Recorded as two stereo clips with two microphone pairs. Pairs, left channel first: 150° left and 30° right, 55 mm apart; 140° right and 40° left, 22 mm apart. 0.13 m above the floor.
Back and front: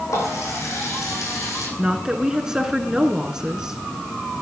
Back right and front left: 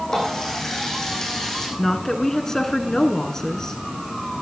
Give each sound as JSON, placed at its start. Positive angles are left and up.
{"t": 0.1, "sound": "a running tap", "azimuth_deg": 150, "distance_m": 5.0}
{"t": 1.8, "sound": "a woman speaking", "azimuth_deg": -100, "distance_m": 1.5}